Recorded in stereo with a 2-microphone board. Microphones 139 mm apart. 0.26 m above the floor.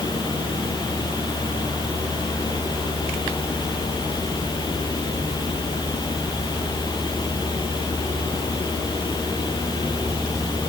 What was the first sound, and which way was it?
Only background noise.